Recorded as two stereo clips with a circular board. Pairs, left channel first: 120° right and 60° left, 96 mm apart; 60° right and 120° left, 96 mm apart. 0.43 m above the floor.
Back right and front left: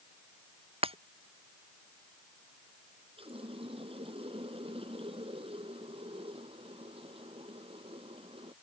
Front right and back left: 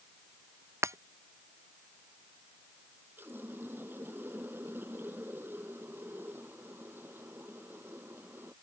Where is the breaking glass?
60° left.